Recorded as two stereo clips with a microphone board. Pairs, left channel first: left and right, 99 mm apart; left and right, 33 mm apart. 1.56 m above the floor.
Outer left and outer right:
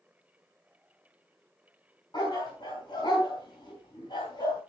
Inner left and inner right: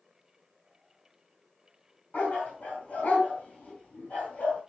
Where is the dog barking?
45° left (ahead or behind), 4 m.